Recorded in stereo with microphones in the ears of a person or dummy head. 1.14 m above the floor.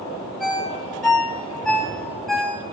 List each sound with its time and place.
0.4 s a ringtone: centre (ahead or behind), 1.3 m